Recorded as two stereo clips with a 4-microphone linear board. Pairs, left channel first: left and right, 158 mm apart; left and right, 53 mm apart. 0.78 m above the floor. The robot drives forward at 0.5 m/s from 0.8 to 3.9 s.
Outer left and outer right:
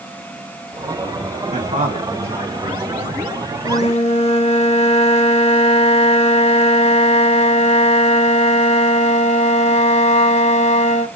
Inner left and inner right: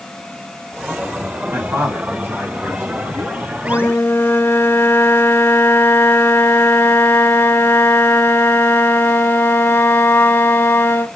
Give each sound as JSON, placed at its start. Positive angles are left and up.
{"t": 1.5, "sound": "a man speaking", "side_deg": -50, "distance_m": 1.4}
{"t": 3.6, "sound": "a flute", "side_deg": 45, "distance_m": 0.5}